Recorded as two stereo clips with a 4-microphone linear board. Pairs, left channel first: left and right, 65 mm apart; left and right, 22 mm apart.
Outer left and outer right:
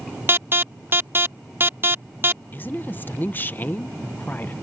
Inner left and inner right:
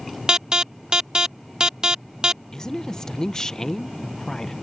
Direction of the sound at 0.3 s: 35° right (ahead or behind).